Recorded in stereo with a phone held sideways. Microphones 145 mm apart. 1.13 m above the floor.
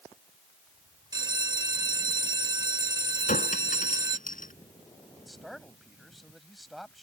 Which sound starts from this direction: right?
A bell, at 1.1 s.